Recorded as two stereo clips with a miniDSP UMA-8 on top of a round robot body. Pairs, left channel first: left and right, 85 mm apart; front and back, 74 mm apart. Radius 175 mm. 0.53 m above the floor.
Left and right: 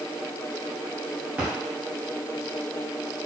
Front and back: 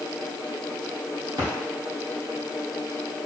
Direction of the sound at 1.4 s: 160° right.